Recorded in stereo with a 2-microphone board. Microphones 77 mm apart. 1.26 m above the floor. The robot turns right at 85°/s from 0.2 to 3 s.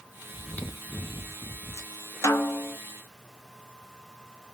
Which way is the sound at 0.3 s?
5° left.